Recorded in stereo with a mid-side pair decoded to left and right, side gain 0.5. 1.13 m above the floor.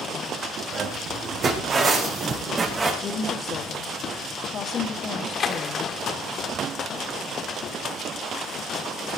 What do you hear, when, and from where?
0.7 s footsteps: 60° right, 4 m; by 2.9 s 30° right, 5 m
3.0 s a woman speaking: 45° left, 1.7 m
5.1 s a splash: 50° left, 1.6 m